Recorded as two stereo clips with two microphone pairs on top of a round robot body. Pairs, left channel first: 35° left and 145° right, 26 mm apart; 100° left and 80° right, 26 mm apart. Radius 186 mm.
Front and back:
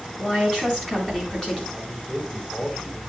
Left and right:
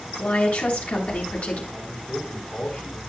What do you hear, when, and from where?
0.2 s a woman speaking: 100° left, 7.5 m
1.7 s a man speaking: 110° left, 4.5 m